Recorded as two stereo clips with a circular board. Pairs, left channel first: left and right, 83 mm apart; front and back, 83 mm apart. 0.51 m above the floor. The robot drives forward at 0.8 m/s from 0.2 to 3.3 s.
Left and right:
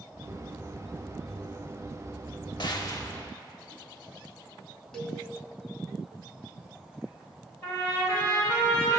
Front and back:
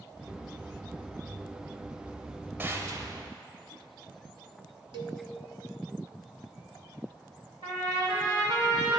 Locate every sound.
2.6 s a gunshot: 115° left, 0.6 m; by 3.3 s 145° left, 1.0 m
4.9 s a cowbell: 175° left, 0.7 m
7.6 s a trumpet: 160° left, 3 m